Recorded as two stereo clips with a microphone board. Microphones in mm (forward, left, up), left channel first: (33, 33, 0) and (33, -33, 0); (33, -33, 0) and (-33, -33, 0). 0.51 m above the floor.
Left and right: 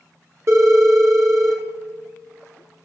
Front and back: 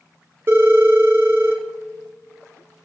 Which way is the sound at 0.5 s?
125° right.